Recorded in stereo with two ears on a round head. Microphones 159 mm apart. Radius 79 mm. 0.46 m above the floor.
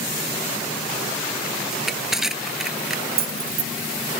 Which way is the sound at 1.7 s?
5° right (ahead or behind).